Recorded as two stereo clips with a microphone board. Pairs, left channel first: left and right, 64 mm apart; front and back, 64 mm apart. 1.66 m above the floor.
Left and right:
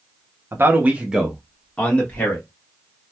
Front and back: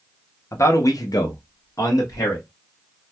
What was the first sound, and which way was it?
A man speaking, 40° right.